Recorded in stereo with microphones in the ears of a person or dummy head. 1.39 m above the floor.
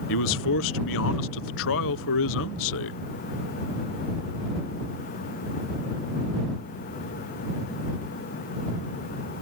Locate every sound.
0.1 s a man speaking: 75° left (ahead or behind)